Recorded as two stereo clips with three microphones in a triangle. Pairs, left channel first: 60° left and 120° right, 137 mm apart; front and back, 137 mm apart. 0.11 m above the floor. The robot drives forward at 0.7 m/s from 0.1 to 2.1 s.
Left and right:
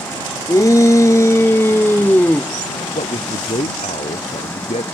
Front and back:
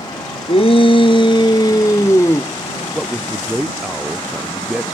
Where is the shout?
5° left; by 2.5 s 10° left.